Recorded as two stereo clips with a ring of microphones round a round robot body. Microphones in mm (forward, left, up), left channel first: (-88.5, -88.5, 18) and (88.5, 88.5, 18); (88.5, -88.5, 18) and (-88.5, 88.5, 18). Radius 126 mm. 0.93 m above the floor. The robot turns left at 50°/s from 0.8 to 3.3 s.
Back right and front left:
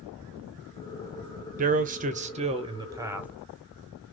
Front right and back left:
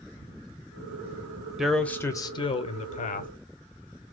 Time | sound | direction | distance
1.6 | a man speaking | 50° left | 0.7 m